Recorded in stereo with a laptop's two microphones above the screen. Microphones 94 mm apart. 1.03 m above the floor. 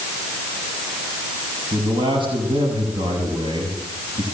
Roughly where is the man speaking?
Right.